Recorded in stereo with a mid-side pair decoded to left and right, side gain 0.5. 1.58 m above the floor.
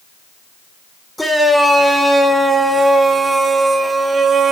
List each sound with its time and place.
1.2 s a shout: straight ahead, 6 m; by 4.5 s 35° right, 4 m